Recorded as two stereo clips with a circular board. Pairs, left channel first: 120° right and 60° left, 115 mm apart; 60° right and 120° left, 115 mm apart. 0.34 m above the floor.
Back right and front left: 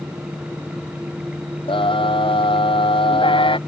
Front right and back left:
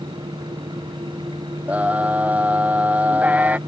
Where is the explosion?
I don't hear an explosion.